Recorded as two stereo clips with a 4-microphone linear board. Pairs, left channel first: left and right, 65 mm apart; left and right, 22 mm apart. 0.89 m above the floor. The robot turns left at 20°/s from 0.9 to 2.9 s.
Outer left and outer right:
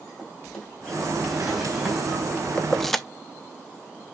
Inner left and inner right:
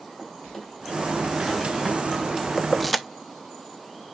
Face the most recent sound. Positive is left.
turn(degrees=5)  # may be behind; listen again after turning